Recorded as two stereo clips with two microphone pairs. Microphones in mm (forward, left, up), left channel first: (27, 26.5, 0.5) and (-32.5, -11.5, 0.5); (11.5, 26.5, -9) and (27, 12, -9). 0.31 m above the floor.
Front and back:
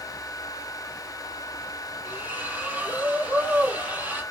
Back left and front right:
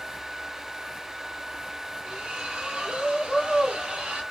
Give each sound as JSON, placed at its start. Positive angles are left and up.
{"t": 2.0, "sound": "a splash", "azimuth_deg": -80, "distance_m": 2.5}